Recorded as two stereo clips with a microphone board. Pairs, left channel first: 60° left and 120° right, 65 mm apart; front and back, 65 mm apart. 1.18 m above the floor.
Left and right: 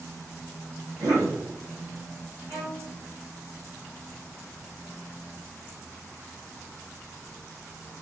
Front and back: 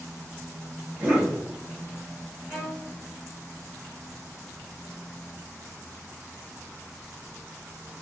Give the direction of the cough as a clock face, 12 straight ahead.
4 o'clock.